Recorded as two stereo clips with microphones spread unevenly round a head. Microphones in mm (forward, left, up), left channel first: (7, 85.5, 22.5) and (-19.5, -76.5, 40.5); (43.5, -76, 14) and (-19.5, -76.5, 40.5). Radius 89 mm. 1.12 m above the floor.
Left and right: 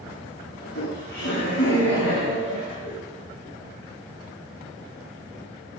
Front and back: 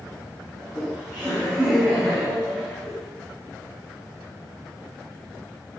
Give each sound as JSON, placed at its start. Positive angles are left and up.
{"t": 0.6, "sound": "laughter", "azimuth_deg": 105, "distance_m": 9.0}